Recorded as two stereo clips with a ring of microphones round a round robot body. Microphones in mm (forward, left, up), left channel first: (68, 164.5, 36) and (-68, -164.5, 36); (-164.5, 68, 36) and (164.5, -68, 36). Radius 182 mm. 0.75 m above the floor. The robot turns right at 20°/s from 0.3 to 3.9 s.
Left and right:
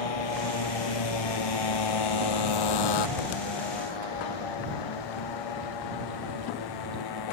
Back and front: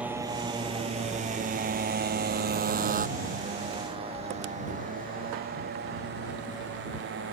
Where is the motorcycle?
65° left; by 7.3 s 35° left.